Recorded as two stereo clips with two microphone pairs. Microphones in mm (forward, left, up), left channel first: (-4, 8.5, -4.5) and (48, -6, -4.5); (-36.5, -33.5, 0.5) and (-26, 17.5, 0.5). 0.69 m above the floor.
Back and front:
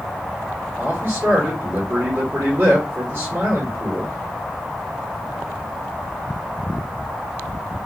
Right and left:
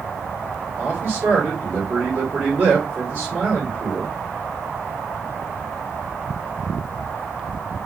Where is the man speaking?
20° left, 2 m.